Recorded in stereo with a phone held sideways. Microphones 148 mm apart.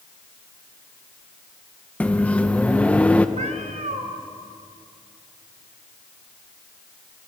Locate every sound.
2.0 s a microwave: 10° left (ahead or behind), 1.1 m
3.4 s a cat meowing: 55° right (ahead or behind), 2 m